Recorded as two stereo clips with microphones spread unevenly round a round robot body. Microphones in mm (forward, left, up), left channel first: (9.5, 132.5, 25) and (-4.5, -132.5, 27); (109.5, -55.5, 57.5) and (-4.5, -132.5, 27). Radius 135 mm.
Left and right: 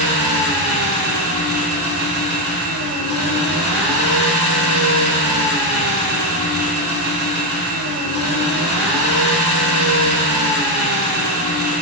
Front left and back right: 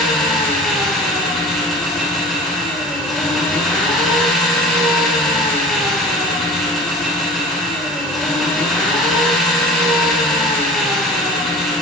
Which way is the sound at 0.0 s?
55° right.